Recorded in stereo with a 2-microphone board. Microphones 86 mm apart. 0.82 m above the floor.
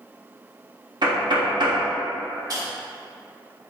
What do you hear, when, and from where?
1.0 s knocking: 55° right (ahead or behind), 0.8 m
2.5 s a dropped coin: 45° right (ahead or behind), 1.0 m